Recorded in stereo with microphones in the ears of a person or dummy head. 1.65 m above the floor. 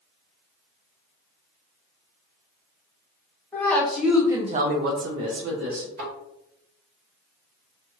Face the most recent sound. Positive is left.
turn(degrees=-50)  # may be behind; listen again after turning